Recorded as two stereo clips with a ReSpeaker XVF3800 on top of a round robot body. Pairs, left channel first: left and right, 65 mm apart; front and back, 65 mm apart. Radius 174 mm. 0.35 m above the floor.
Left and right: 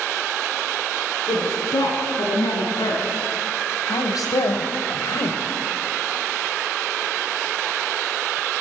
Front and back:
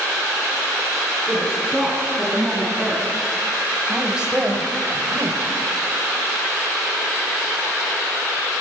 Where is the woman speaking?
80° left, 8 m; by 5.4 s 130° left, 3 m.